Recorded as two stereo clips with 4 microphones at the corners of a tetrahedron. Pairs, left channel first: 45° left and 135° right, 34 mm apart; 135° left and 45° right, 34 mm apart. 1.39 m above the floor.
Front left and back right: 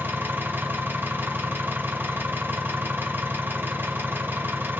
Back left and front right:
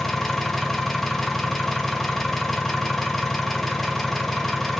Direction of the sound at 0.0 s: 140° right.